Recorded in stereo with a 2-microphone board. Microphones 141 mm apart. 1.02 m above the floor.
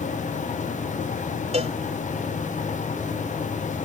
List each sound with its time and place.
1.5 s a cowbell: 50° right (ahead or behind)